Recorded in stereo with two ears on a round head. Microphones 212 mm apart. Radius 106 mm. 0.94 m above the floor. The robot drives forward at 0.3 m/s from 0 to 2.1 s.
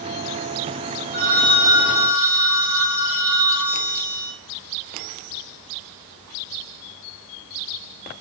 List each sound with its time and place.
1.1 s a phone ringing: 20° right (ahead or behind), 1.2 m; by 4.3 s 30° right (ahead or behind), 0.9 m